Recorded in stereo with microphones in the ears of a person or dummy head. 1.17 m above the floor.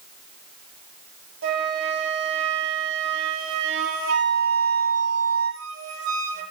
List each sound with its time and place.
1.4 s a flute: 70° right (ahead or behind), 6.5 m